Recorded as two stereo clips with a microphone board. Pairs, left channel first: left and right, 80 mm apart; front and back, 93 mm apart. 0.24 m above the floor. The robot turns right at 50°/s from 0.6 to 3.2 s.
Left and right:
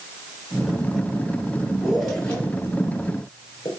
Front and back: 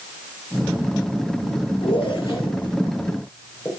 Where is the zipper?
10° right, 2.5 m; by 3.7 s 60° left, 2.5 m.